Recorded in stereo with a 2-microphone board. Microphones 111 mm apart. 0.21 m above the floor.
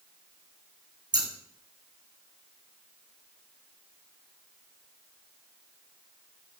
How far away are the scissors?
About 2.5 m.